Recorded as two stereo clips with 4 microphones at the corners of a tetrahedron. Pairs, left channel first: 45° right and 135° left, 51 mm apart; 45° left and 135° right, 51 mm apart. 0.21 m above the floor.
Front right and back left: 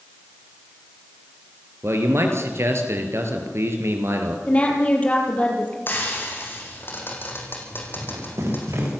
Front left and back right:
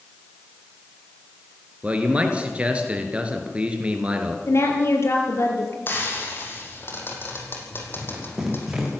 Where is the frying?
Straight ahead, 5 m.